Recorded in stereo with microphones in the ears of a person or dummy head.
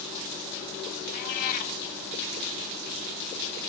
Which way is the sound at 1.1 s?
50° left (ahead or behind).